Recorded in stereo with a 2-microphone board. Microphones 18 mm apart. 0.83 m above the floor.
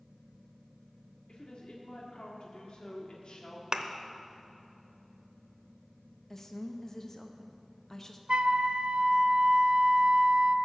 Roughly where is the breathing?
I don't hear breathing.